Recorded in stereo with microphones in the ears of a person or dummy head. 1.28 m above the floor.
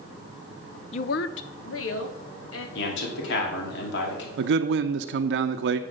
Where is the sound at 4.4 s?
75° right (ahead or behind), 0.6 m.